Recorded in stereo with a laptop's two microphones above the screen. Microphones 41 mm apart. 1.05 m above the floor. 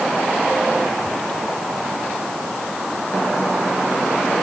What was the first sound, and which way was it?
Only background noise.